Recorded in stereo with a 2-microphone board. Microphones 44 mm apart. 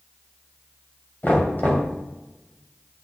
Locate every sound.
1.2 s knocking: 40° left (ahead or behind), 2.5 m